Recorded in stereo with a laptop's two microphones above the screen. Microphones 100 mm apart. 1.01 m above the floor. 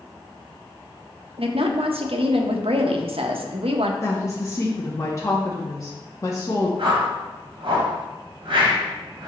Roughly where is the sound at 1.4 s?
Right.